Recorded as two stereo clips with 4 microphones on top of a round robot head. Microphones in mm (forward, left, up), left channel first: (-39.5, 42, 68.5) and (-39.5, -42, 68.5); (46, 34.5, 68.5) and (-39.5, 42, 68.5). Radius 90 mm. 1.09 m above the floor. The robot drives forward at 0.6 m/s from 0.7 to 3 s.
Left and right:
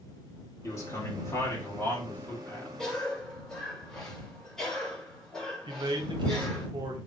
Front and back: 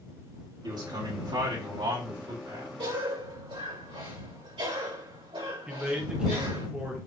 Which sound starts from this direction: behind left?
A man speaking, at 0.6 s.